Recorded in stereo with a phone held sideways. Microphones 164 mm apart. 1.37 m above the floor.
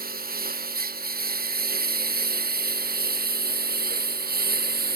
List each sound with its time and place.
0.0 s a lawn mower: 65° right (ahead or behind); by 5.0 s 70° right (ahead or behind)